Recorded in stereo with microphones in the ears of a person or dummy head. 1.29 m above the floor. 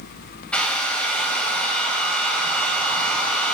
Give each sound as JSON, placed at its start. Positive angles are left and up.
{"t": 0.5, "sound": "a hair dryer", "side_deg": 10, "distance_m": 2.0}